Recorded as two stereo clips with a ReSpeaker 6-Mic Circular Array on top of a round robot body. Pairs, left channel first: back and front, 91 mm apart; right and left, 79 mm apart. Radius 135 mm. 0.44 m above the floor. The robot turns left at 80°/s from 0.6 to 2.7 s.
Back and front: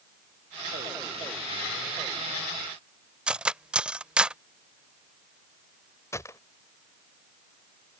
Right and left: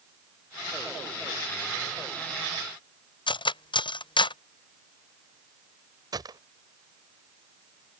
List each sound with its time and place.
3.3 s cutlery clinking: 80° right
6.1 s a gunshot: 120° left